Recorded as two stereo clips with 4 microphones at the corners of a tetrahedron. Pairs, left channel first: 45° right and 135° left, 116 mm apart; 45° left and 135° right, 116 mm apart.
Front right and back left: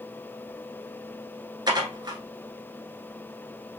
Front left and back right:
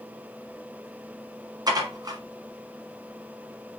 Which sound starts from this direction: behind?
Dishes clattering, at 1.7 s.